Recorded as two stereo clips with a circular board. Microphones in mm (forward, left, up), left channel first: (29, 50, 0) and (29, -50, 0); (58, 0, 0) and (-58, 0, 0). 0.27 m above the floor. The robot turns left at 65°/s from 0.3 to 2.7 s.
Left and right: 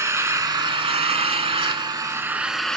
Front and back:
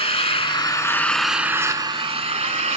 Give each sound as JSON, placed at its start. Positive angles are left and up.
{"t": 0.0, "sound": "an engine running", "azimuth_deg": -30, "distance_m": 0.9}